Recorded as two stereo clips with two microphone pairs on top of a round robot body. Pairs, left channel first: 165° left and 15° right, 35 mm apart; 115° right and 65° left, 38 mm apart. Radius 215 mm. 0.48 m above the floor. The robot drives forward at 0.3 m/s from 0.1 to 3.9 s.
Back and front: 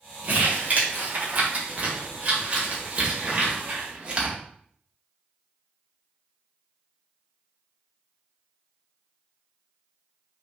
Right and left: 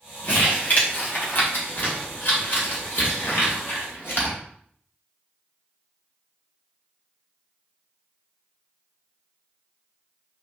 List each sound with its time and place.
0.2 s crumpling: 60° right, 2.5 m; by 4.4 s 85° right, 2.5 m